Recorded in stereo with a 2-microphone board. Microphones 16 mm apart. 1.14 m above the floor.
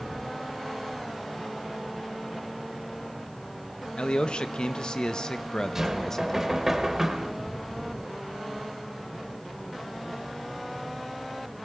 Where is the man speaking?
70° left (ahead or behind), 1.7 m; by 6.6 s 20° left (ahead or behind), 1.7 m.